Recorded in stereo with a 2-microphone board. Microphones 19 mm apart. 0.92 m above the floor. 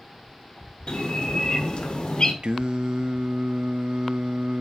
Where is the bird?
70° left (ahead or behind), 1.4 m.